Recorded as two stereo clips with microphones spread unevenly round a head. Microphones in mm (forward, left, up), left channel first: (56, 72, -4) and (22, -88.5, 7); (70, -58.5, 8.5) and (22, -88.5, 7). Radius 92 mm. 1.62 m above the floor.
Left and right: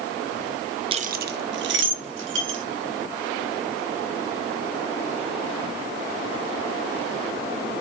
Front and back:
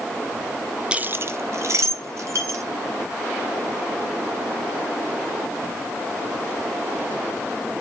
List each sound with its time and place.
0.9 s keys jangling: 85° right, 0.5 m; by 2.6 s 120° right, 3 m